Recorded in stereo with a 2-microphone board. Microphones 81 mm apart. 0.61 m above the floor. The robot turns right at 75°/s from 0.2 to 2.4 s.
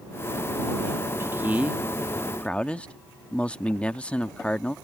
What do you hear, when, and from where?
1.2 s a man speaking: 65° right; by 4.8 s 25° left